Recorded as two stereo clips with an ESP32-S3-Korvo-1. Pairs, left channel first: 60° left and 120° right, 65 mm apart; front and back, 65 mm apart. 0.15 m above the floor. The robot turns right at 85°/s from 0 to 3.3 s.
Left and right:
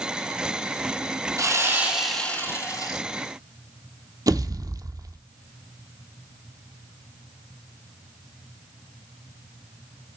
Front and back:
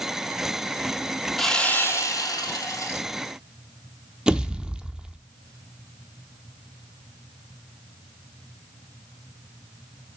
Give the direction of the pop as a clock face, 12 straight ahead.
3 o'clock.